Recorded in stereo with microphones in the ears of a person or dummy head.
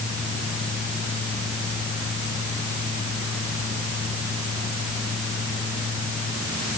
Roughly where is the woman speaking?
No woman speaking in this recording.